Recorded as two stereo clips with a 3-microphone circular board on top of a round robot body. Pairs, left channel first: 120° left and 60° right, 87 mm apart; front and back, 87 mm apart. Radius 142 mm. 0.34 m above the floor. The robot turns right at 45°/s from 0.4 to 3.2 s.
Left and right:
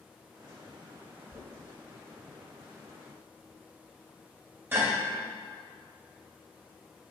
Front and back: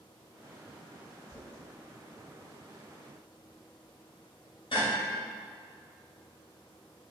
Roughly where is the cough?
No cough in this recording.